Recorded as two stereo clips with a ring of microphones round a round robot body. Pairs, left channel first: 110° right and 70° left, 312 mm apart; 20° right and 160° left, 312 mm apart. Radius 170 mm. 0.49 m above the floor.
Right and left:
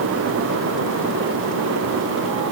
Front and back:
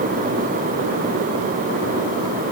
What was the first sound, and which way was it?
Only background noise.